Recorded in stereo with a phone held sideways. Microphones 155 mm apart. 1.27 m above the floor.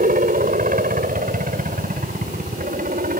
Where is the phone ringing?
No phone ringing in this recording.